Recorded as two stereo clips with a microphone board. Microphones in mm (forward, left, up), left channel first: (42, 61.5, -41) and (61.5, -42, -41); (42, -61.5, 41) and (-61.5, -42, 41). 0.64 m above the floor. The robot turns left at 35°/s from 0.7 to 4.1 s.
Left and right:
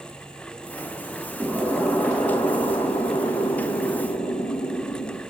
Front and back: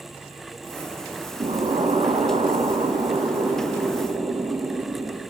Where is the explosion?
175° right, 8 m; by 5.2 s 90° left, 8 m.